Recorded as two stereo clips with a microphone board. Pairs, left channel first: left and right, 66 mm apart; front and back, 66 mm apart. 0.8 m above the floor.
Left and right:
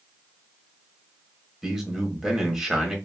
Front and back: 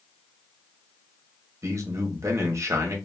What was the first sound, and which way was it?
A man speaking, 170° right.